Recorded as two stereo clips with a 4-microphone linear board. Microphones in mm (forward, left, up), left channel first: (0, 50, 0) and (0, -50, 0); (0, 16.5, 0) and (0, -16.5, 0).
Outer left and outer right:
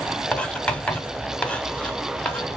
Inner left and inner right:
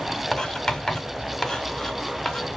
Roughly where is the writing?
Centre.